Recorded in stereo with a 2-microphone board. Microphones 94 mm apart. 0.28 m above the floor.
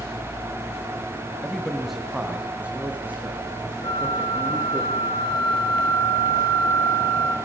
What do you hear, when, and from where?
1.4 s a man speaking: 10° left (ahead or behind), 1.3 m; by 4.8 s 25° right (ahead or behind), 4.5 m
3.8 s a flute: 60° left (ahead or behind), 5 m